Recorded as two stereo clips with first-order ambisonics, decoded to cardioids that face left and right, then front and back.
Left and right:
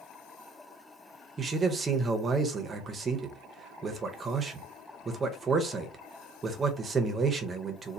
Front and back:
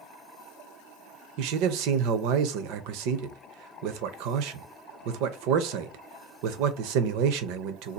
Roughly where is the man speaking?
Behind.